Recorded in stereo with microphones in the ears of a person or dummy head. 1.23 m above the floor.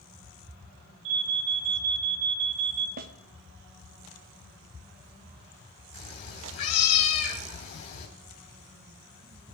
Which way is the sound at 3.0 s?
55° right (ahead or behind).